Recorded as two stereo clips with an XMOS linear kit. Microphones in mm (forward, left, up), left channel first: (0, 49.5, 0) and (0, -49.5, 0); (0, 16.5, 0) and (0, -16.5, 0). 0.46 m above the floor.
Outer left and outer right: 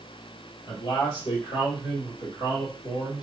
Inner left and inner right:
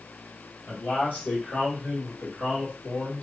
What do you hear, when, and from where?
0.7 s a man speaking: 55° left (ahead or behind), 1.6 m; by 3.2 s 45° left (ahead or behind), 2 m